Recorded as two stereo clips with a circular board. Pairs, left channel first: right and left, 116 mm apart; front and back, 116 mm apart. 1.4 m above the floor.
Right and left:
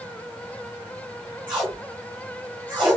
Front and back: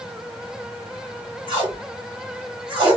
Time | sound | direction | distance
1.5 | tape being pulled | 135° left | 1.7 m